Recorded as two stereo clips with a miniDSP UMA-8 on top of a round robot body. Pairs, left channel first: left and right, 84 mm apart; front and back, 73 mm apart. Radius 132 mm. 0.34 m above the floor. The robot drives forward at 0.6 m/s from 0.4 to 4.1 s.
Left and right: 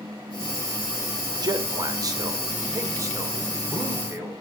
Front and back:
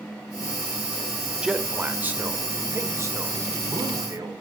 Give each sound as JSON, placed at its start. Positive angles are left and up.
{"t": 1.4, "sound": "a man speaking", "azimuth_deg": -105, "distance_m": 1.6}